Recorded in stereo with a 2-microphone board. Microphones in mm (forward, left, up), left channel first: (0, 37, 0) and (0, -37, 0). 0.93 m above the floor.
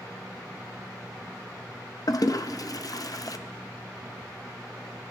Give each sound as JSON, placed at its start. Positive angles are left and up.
{"t": 2.1, "sound": "a toilet flushing", "side_deg": 55, "distance_m": 0.6}